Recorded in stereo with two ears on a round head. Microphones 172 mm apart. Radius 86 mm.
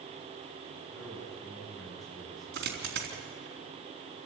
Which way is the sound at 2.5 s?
60° right (ahead or behind).